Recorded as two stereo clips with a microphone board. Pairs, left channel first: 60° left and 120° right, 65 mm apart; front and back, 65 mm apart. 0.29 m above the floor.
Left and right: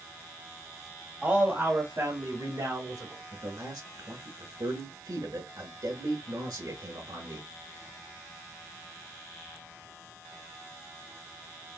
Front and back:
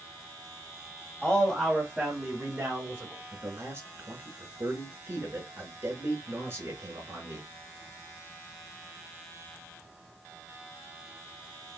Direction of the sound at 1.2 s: 65° right.